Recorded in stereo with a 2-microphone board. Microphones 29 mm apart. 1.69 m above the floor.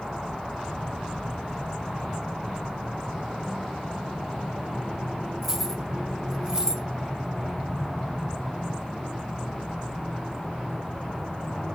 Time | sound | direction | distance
5.4 | keys jangling | 10° right (ahead or behind) | 1.3 m